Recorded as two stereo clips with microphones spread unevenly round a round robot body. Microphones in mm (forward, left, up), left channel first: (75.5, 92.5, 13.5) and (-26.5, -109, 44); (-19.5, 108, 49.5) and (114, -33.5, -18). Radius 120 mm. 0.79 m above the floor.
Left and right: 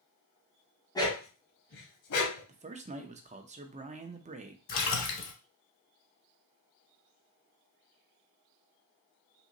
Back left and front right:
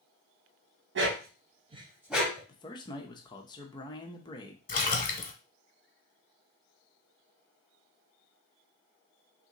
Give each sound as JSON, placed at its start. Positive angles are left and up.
{"t": 0.9, "sound": "a dog barking", "azimuth_deg": -15, "distance_m": 1.2}
{"t": 2.5, "sound": "a man speaking", "azimuth_deg": -140, "distance_m": 0.6}
{"t": 4.7, "sound": "a splash", "azimuth_deg": 100, "distance_m": 0.9}